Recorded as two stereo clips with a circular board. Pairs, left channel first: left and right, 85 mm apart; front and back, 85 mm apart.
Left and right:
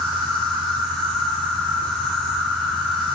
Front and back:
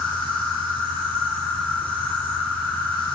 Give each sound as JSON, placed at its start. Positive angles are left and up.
{"t": 0.0, "sound": "an insect", "azimuth_deg": 175, "distance_m": 7.5}